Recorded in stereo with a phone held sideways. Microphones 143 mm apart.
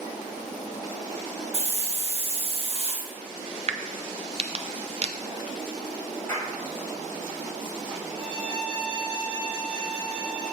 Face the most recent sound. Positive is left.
turn(degrees=-45)  # may be behind; listen again after turning